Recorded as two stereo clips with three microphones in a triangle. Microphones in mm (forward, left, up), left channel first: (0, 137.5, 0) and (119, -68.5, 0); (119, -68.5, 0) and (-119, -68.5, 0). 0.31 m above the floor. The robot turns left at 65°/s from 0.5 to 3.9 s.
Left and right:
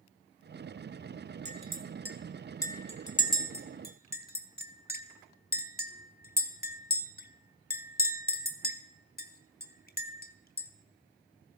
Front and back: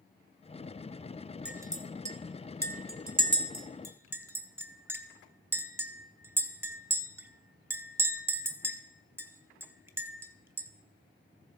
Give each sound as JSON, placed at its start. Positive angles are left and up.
{"t": 1.4, "sound": "a clink", "azimuth_deg": -95, "distance_m": 0.7}